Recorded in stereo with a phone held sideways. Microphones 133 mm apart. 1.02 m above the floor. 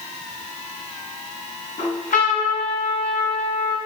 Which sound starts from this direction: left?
A trumpet, at 1.8 s.